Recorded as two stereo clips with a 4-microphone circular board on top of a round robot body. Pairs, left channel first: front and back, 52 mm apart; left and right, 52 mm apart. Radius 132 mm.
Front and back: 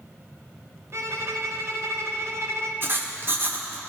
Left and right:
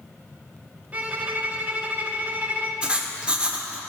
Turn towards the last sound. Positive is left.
turn(degrees=-155)